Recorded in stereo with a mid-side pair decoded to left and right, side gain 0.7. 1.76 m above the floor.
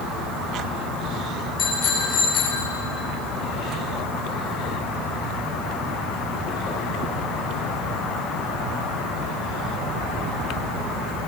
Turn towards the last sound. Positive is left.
turn(degrees=30)